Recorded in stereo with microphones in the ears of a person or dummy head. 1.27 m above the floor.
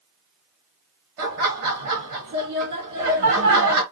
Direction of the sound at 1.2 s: 50° right (ahead or behind).